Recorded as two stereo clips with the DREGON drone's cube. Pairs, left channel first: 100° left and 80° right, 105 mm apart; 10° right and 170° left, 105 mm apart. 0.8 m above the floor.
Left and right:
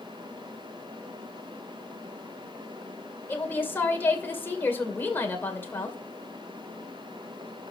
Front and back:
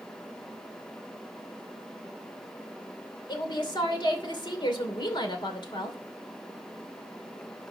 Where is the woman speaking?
30° left, 2.5 m.